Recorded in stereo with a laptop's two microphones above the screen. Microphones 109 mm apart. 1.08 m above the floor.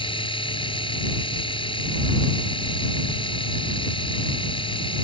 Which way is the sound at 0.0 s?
55° left (ahead or behind).